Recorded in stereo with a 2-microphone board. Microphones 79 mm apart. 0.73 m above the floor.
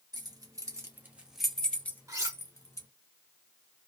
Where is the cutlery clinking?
40° right (ahead or behind), 0.8 m.